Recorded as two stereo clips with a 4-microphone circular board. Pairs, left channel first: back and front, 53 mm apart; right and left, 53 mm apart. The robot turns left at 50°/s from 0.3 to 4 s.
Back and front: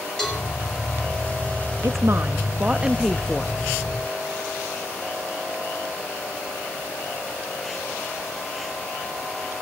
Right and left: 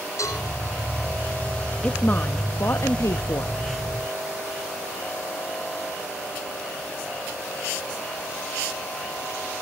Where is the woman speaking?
20° right, 0.7 m; by 3.5 s 105° right, 0.7 m.